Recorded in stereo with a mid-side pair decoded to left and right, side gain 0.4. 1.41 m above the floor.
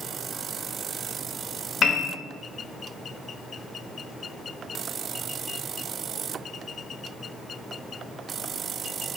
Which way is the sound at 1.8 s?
70° left.